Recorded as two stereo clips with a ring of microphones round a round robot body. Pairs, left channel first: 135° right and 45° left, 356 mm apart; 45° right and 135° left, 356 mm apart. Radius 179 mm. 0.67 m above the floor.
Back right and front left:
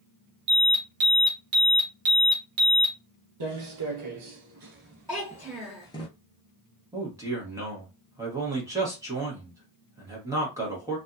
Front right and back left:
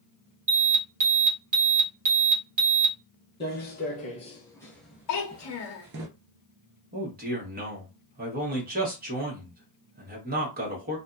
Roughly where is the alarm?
Left.